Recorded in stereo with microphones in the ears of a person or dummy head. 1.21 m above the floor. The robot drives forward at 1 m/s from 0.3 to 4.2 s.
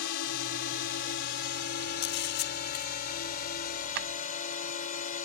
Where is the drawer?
60° right (ahead or behind); by 4.1 s 55° right (ahead or behind).